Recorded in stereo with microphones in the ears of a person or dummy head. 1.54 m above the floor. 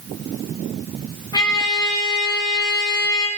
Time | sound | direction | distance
1.3 | a trumpet | 20° left (ahead or behind) | 2.5 m